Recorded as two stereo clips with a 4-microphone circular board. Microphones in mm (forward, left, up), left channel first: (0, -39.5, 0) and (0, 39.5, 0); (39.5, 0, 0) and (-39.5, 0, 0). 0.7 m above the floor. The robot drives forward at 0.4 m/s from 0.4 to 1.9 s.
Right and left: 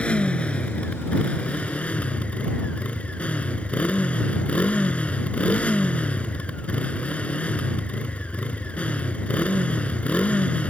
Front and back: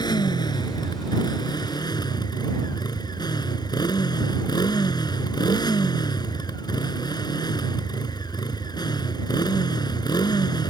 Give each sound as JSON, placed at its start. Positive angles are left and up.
{"t": 0.0, "sound": "a motorcycle", "azimuth_deg": -15}